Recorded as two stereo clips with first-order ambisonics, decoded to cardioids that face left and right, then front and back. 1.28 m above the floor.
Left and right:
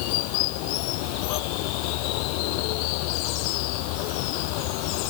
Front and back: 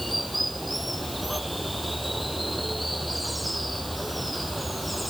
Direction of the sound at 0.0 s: 95° left.